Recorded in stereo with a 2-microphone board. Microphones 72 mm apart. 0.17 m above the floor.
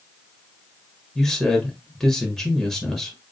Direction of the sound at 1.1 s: Centre (ahead or behind).